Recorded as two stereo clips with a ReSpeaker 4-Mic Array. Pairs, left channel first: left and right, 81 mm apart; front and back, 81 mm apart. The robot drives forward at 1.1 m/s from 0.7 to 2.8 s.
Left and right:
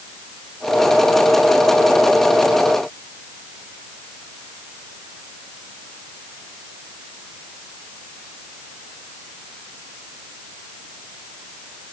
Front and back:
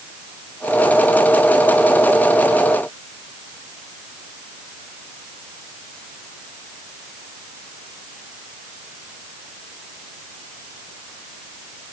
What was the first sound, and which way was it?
Only background noise.